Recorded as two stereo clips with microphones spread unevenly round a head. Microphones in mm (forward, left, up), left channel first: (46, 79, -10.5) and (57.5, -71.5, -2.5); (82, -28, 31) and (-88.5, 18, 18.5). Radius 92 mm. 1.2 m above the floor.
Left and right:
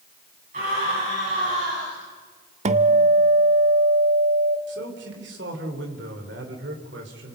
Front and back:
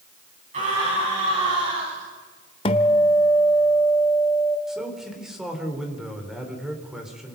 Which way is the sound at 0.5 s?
140° right.